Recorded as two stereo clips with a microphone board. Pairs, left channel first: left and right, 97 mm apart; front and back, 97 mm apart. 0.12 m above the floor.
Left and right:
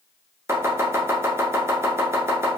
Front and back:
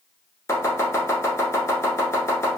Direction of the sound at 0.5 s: 40° right.